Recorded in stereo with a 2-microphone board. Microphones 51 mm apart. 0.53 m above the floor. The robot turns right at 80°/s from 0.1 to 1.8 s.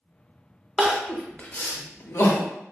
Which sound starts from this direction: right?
Crying, at 0.8 s.